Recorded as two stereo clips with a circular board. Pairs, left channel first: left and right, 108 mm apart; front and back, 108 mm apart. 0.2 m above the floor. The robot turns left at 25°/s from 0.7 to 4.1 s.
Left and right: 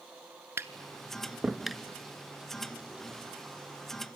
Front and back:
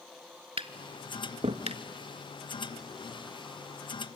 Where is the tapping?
155° right, 0.6 m; by 1.8 s straight behind, 0.6 m.